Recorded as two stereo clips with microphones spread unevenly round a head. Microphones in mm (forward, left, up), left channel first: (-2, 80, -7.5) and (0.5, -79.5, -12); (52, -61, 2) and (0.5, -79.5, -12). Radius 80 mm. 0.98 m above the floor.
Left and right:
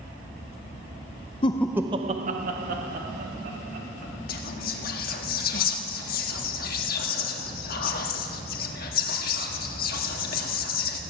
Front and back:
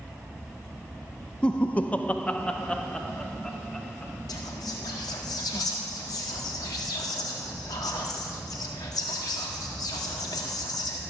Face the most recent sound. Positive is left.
turn(degrees=55)